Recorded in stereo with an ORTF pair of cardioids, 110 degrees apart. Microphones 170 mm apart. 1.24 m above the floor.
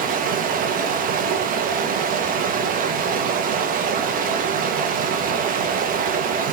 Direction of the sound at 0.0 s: 55° right.